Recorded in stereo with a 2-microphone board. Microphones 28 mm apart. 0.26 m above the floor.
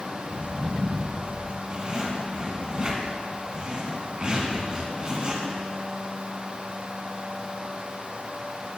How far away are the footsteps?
About 3 m.